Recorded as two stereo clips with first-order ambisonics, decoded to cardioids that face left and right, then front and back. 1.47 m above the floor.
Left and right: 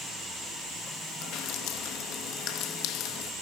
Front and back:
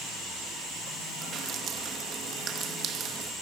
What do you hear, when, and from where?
1.2 s dripping: 125° left, 1.3 m